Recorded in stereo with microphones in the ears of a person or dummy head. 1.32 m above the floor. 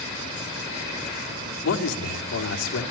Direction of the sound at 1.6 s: 85° left.